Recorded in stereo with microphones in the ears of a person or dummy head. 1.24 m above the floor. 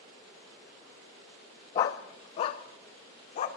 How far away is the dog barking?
About 0.6 m.